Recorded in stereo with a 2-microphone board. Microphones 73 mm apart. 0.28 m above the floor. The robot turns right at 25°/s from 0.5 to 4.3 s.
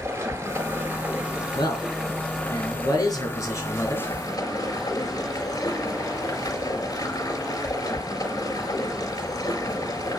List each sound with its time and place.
0.0 s running water: 35° right, 4.5 m; by 10.2 s 60° left, 4.5 m
1.6 s a man speaking: 85° left, 5.5 m; by 4.1 s 150° left, 5.5 m